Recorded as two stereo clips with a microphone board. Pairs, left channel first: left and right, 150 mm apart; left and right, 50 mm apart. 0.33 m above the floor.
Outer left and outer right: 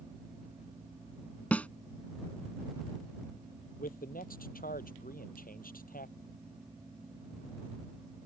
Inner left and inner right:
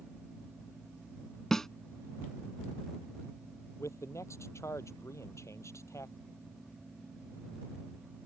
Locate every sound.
1.5 s a snare drum: 10° left (ahead or behind)
3.8 s a man speaking: 70° left (ahead or behind)